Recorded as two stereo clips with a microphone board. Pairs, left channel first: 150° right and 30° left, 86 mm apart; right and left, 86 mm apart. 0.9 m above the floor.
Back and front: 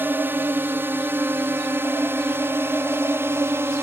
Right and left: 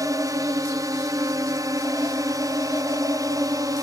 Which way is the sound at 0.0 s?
85° left.